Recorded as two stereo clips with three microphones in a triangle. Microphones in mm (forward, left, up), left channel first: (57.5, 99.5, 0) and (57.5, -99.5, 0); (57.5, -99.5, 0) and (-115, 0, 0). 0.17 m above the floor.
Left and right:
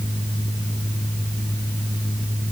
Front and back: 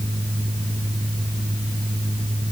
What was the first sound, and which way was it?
Only background noise.